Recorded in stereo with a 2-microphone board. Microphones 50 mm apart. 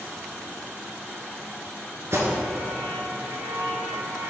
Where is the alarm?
65° right (ahead or behind), 2 m.